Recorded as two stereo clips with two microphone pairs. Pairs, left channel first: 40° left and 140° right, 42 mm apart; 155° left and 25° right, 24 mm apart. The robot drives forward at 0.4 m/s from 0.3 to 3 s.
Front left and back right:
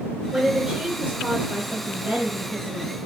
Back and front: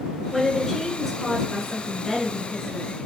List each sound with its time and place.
0.3 s a woman speaking: 95° right, 1.3 m; by 3.0 s 150° right, 1.7 m